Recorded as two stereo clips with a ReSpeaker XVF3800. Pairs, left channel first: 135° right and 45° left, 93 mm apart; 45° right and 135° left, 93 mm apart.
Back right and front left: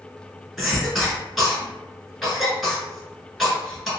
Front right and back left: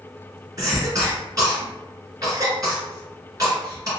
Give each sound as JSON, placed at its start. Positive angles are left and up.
{"t": 0.6, "sound": "a cough", "azimuth_deg": 135, "distance_m": 1.5}